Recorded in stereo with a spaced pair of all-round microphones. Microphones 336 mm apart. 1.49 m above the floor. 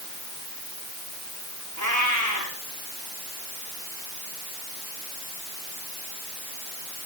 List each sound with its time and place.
1.8 s a cat meowing: 60° right (ahead or behind), 5.5 m